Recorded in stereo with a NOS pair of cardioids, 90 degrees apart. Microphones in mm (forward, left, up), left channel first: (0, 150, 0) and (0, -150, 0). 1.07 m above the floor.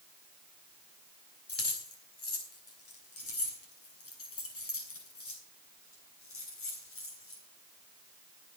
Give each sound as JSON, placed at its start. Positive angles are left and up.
{"t": 1.5, "sound": "keys jangling", "azimuth_deg": 55, "distance_m": 5.0}